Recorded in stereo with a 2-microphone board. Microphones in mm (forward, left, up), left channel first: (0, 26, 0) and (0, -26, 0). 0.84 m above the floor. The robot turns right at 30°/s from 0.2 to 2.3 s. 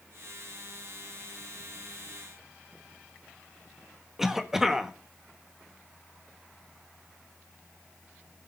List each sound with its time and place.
4.2 s a cough: 5° right (ahead or behind), 1.4 m